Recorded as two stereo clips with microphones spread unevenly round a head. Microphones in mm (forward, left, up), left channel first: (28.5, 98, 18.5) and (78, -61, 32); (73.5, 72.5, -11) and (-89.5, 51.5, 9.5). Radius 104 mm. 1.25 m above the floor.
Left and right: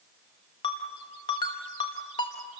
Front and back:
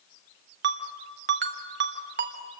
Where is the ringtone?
175° left, 1.4 m.